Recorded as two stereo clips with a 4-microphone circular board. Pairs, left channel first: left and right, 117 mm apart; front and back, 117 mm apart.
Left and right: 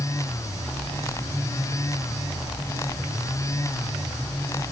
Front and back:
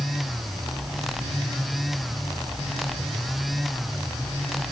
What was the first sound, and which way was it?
Only background noise.